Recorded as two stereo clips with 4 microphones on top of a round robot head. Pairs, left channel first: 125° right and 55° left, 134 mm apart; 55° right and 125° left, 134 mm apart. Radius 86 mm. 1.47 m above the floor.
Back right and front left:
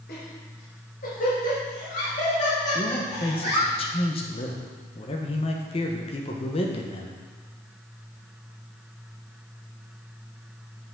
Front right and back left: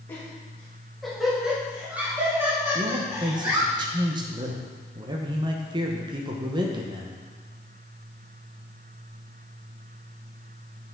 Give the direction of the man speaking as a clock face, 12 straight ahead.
6 o'clock.